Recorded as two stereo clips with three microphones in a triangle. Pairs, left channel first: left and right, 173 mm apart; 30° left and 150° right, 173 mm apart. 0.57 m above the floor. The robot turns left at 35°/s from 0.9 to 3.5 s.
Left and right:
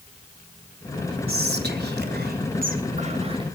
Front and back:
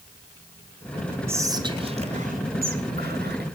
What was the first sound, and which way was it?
Whispering, 75° right.